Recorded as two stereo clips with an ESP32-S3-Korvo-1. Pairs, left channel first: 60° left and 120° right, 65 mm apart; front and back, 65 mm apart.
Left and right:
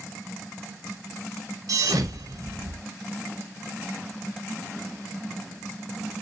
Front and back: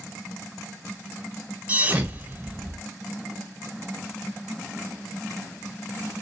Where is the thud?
115° right, 0.8 m.